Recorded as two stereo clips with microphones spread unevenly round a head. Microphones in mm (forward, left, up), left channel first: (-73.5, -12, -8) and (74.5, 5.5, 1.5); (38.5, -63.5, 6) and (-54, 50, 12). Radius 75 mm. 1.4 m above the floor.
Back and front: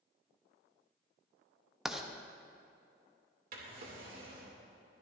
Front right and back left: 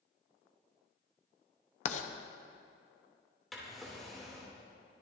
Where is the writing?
75° right, 0.9 m.